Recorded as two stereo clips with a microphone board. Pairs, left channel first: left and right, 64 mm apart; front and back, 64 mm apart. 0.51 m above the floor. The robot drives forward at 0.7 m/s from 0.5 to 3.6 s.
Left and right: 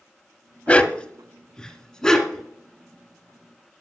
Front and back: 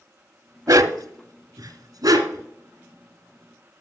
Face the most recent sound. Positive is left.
turn(degrees=175)